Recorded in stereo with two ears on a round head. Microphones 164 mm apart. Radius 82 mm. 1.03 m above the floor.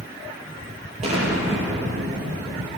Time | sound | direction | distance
1.0 | an explosion | 35° right (ahead or behind) | 7.5 m